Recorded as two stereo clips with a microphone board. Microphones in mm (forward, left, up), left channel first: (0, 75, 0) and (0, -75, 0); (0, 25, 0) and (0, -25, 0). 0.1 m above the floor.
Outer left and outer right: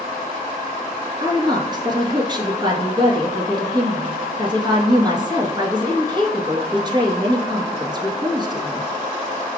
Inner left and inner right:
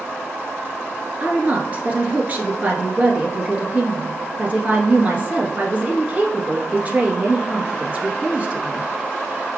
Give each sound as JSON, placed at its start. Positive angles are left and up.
{"t": 1.2, "sound": "a woman speaking", "side_deg": -30, "distance_m": 1.2}